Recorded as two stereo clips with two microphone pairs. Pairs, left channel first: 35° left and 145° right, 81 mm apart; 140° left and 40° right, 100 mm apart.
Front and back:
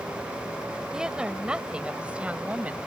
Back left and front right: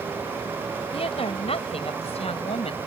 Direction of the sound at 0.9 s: 130° left.